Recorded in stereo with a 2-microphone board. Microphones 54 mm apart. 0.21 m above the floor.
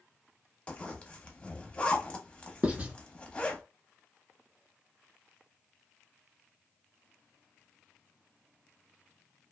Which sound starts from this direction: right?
Writing, at 2.6 s.